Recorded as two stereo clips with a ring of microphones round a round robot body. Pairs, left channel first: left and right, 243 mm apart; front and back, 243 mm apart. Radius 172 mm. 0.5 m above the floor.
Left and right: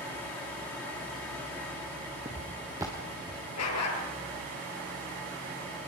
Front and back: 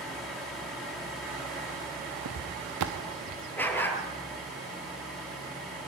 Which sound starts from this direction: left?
A dog barking, at 3.6 s.